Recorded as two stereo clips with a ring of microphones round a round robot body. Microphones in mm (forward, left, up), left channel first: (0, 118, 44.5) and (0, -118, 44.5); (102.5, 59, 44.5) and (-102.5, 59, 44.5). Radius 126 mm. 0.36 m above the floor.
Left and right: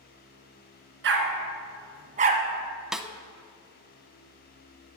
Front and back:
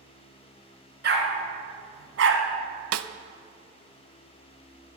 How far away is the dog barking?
About 2.0 m.